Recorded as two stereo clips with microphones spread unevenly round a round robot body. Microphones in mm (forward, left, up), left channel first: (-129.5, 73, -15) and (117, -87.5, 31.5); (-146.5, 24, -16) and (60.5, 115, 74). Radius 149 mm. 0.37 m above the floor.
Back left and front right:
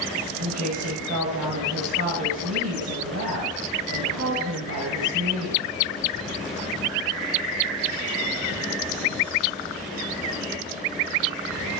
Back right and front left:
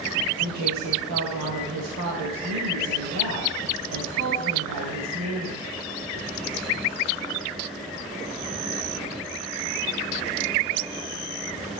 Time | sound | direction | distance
0.4 | a woman speaking | 5° left | 2 m